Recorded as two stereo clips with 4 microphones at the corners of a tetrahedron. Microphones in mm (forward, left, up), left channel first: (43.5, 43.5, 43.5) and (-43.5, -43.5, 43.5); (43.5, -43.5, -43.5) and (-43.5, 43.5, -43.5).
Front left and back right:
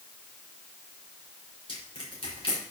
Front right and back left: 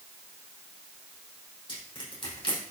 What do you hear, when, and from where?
1.7 s crushing: straight ahead, 5 m